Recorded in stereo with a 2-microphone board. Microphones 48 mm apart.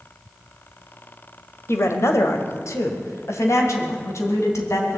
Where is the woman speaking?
65° left (ahead or behind), 1.7 m; by 5.0 s 80° left, 3.5 m.